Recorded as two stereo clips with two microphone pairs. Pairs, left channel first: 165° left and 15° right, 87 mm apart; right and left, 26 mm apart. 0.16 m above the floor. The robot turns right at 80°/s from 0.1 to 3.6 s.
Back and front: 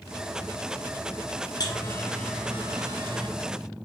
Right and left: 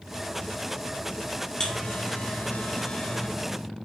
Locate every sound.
1.6 s a buzzer: 155° right, 3.5 m; by 3.3 s 20° right, 3.5 m